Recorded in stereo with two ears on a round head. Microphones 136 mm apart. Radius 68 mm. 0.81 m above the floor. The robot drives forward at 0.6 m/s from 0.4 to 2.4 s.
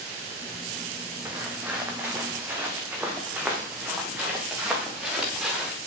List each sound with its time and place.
1.2 s footsteps: 10° right (ahead or behind), 2 m; by 5.7 s 5° right (ahead or behind), 4 m